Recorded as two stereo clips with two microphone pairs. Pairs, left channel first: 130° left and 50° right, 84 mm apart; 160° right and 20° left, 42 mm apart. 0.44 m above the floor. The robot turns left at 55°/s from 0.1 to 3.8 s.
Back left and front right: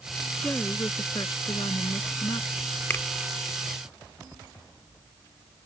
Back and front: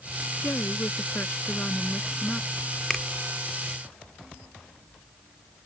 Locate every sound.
0.4 s a woman speaking: 155° right; by 2.6 s 80° left
2.9 s a finger snap: 125° left; by 3.0 s 120° left